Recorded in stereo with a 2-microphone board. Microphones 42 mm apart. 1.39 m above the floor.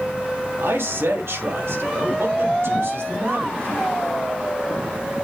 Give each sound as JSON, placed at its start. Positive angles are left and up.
{"t": 0.6, "sound": "a man speaking", "side_deg": -80, "distance_m": 3.0}